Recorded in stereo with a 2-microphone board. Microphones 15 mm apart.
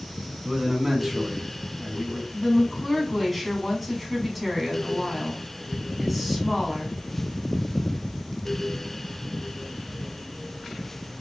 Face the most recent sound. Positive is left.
turn(degrees=5)  # may be behind; listen again after turning